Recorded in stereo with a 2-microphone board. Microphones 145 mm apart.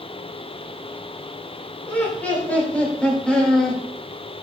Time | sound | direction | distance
1.9 | laughter | 15° left (ahead or behind) | 3 m